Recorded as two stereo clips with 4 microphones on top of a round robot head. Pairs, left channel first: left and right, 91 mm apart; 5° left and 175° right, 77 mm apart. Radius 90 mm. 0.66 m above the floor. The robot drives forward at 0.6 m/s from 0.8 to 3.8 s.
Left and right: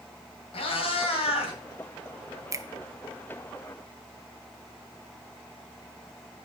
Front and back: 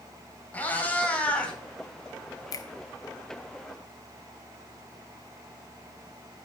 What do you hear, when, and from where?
0.5 s a cat meowing: 75° left, 3.5 m; by 1.6 s 80° left, 3.5 m
2.5 s a finger snap: 35° right, 1.1 m; by 2.6 s 40° right, 1.0 m